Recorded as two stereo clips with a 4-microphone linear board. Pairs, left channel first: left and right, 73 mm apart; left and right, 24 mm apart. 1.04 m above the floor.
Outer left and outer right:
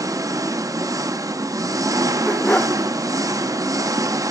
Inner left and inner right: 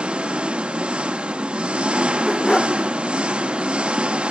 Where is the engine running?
50° right (ahead or behind), 0.8 m.